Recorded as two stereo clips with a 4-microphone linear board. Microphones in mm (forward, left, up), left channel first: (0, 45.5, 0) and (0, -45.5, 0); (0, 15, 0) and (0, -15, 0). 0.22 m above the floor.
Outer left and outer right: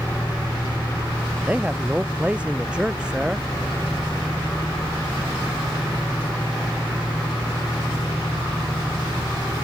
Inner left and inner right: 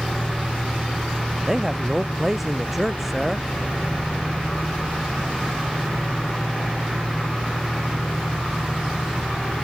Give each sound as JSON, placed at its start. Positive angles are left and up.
{"t": 1.4, "sound": "a man speaking", "side_deg": -15}